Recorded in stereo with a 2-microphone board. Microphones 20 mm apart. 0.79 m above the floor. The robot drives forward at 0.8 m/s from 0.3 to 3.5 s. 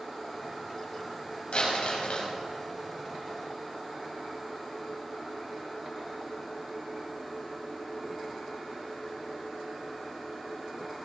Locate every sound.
1.5 s crumpling: 75° left (ahead or behind), 5 m; by 2.3 s 80° left, 5 m